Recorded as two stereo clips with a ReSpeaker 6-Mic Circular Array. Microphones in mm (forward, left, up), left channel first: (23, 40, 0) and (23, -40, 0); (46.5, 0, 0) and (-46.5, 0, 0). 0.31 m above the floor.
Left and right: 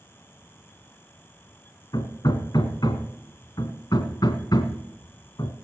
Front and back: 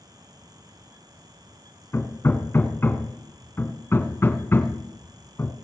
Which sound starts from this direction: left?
Hammering, at 1.9 s.